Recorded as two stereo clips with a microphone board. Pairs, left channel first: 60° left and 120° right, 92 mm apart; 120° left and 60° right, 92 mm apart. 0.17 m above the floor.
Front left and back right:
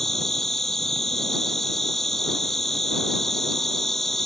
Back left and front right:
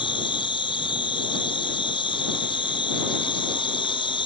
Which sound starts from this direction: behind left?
An insect, at 0.0 s.